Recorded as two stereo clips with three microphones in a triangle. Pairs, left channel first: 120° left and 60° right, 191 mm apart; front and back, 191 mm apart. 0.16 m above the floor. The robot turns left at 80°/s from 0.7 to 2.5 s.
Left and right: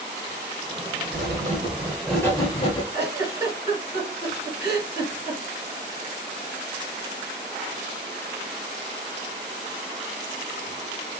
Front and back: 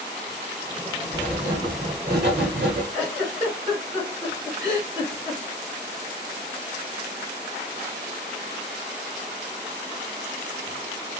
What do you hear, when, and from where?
1.1 s writing: 70° right, 1.0 m; by 2.8 s straight behind, 1.0 m
2.9 s a giggle: 80° left, 2.0 m